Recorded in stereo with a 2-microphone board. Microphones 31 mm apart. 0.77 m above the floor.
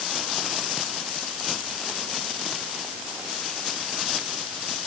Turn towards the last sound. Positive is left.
No sound to turn to.